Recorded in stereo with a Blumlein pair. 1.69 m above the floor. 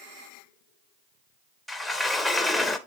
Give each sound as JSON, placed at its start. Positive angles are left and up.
{"t": 1.7, "sound": "a sliding door", "azimuth_deg": 5, "distance_m": 0.8}